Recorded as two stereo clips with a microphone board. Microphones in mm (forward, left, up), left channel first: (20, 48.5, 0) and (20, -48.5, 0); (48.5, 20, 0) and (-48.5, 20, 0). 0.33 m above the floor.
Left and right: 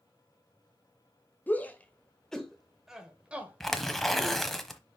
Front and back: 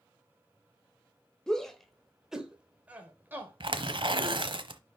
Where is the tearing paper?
175° left, 1.0 m.